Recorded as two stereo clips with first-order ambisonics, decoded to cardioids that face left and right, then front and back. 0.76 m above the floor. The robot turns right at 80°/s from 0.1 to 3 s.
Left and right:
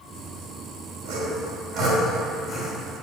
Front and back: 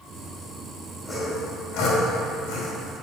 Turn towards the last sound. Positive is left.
turn(degrees=55)